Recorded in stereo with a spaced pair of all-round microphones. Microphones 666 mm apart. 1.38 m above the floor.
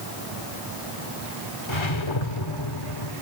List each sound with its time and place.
1.7 s a whoosh: 45° left (ahead or behind), 1.6 m